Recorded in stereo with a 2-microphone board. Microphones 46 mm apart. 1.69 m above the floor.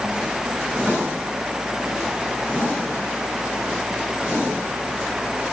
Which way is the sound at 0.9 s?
40° right (ahead or behind).